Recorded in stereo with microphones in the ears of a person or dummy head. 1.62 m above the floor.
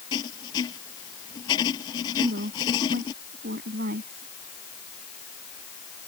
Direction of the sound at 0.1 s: 25° left (ahead or behind).